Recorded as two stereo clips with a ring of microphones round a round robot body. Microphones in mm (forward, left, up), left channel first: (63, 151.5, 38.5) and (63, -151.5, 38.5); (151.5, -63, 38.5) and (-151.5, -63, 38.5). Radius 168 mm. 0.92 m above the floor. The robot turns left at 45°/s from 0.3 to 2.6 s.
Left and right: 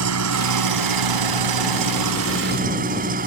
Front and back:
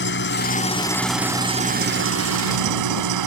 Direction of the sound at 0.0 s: 55° right.